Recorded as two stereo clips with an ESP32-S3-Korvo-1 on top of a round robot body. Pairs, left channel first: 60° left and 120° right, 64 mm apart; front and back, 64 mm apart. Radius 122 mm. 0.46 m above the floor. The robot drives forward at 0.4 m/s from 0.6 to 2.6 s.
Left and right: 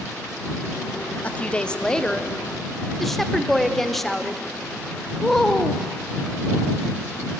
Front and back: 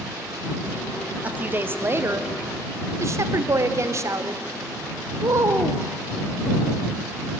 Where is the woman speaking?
120° left, 1.0 m; by 5.8 s 145° left, 1.4 m.